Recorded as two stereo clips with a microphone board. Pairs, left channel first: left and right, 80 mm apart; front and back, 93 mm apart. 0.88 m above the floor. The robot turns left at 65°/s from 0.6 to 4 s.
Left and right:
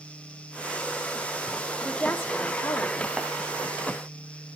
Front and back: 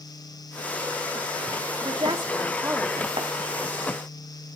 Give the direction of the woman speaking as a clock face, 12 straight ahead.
6 o'clock.